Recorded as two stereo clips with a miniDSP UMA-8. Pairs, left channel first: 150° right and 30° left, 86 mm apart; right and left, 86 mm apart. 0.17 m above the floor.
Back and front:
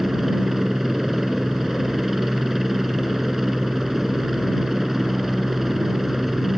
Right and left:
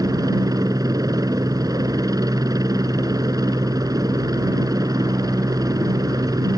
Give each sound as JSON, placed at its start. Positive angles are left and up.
{"t": 0.0, "sound": "a helicopter", "azimuth_deg": 115}